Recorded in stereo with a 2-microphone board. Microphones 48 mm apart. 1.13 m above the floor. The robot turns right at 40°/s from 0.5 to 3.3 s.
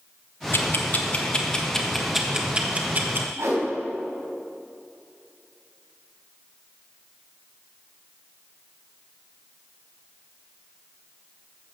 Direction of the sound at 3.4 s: 80° right.